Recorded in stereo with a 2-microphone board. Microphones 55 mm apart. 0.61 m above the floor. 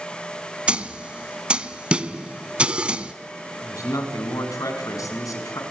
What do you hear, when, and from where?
0.7 s a snare drum: 20° right (ahead or behind), 0.8 m
3.6 s a man speaking: 80° left, 5 m